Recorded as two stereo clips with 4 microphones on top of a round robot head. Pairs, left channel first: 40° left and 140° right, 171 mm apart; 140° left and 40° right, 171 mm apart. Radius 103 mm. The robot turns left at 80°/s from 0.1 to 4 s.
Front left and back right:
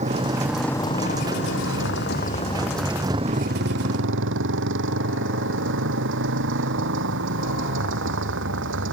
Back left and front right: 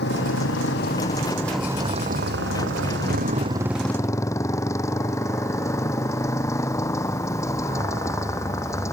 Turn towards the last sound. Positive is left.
turn(degrees=-145)